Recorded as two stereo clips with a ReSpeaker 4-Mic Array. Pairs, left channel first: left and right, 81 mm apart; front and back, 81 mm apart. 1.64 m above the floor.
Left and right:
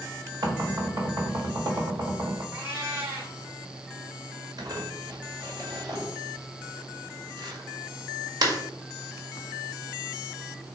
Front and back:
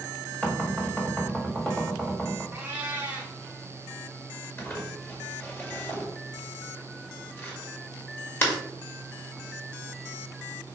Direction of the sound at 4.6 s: 60° right.